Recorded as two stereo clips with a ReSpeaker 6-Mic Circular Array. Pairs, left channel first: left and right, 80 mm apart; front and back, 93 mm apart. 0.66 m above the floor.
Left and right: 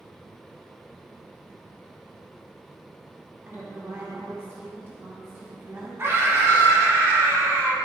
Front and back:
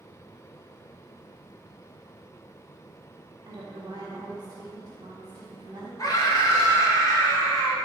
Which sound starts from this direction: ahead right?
A scream, at 6.0 s.